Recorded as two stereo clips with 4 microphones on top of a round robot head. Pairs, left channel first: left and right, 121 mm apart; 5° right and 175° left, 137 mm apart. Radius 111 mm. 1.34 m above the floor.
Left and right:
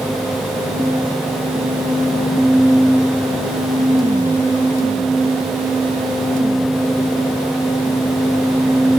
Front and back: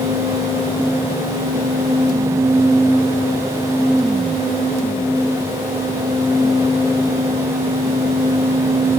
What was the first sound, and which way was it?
Only background noise.